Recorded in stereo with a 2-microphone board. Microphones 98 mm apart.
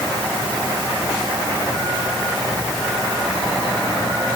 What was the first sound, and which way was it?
Only background noise.